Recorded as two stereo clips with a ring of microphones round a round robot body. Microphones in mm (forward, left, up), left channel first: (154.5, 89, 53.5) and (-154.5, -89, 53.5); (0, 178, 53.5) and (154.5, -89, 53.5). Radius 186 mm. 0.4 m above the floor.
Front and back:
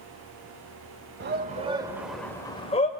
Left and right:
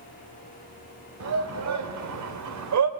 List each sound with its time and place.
1.2 s a shout: 95° right, 1.3 m; by 2.9 s 40° right, 1.5 m